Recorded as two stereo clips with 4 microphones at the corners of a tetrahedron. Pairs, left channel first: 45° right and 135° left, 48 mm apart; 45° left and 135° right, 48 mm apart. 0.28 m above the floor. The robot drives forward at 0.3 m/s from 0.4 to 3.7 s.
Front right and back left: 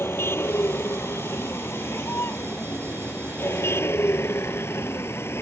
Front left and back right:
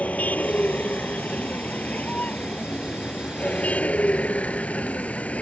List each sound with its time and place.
0.0 s a vehicle: 10° right; by 5.4 s 15° right